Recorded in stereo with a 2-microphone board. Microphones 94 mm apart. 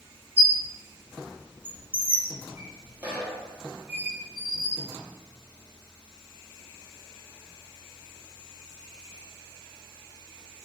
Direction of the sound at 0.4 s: 15° right (ahead or behind).